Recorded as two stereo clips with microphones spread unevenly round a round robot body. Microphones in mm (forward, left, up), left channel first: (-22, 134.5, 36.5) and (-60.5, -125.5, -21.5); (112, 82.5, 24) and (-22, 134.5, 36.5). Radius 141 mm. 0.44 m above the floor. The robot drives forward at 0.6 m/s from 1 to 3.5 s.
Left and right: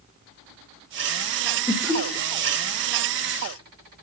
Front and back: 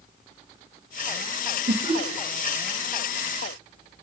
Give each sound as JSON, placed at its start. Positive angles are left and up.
{"t": 1.7, "sound": "laughter", "azimuth_deg": -170, "distance_m": 1.7}